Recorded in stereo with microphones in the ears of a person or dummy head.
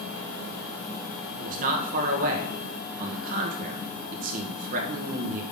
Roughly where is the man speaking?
Right.